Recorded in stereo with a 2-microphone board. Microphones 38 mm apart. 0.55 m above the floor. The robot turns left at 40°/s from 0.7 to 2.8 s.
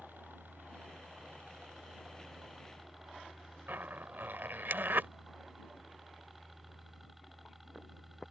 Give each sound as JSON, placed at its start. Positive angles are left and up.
{"t": 0.0, "sound": "a helicopter", "azimuth_deg": -90}
{"t": 3.7, "sound": "a zipper", "side_deg": -70}